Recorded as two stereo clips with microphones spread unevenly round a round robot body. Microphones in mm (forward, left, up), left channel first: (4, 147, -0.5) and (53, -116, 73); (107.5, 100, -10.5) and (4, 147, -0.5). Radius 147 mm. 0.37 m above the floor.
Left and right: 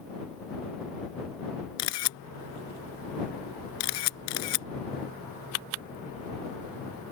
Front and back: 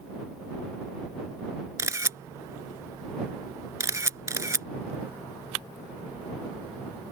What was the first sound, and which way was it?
A camera shutter, 95° left.